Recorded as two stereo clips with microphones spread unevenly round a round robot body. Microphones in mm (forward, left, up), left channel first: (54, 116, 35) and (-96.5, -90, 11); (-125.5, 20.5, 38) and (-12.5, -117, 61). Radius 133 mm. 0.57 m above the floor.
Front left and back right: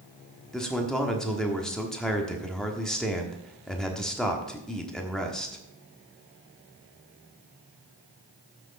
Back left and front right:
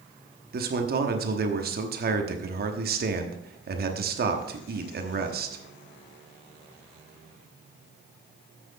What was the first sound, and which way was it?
A man speaking, 40° right.